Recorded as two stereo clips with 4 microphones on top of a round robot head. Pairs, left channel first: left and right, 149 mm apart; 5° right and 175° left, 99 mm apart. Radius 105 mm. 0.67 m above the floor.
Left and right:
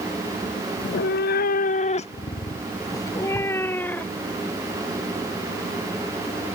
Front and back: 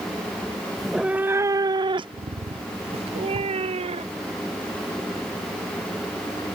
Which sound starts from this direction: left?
A cat meowing, at 0.8 s.